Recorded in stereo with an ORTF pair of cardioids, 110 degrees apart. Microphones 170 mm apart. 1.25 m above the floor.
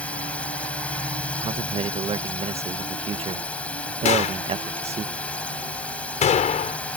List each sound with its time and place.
0.0 s a drone: 10° left
1.4 s a man speaking: 40° right
4.0 s a gunshot: 45° left